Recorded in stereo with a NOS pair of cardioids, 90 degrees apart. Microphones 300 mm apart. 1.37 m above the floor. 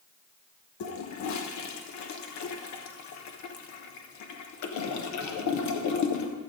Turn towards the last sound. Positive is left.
turn(degrees=70)